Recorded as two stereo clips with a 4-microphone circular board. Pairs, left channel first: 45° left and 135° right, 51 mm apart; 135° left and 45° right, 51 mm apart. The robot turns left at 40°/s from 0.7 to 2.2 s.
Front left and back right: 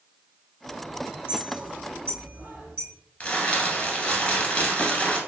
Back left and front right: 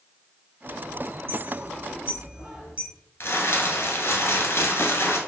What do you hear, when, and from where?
1.3 s a clink: 65° right, 1.9 m; by 2.9 s 100° right, 1.9 m
3.2 s crumpling: 110° left, 0.8 m